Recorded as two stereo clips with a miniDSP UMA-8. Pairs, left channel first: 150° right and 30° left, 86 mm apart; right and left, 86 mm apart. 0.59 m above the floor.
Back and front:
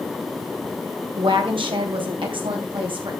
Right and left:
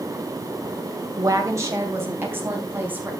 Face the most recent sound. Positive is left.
turn(degrees=20)